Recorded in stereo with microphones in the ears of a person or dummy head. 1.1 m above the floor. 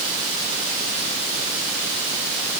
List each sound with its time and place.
Only background noise.